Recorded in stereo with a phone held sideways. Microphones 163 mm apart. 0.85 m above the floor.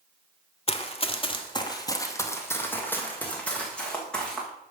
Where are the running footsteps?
35° left (ahead or behind), 1.0 m; by 4.5 s 5° left (ahead or behind), 3 m.